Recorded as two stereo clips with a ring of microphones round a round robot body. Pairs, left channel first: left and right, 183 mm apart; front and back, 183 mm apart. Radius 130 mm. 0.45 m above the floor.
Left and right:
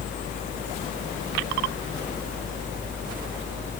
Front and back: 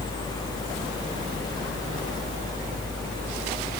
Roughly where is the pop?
I don't hear a pop.